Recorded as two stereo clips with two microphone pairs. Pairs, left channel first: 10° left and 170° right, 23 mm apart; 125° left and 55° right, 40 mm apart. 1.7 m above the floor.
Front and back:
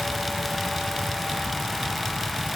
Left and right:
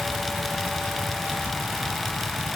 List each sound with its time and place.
Only background noise.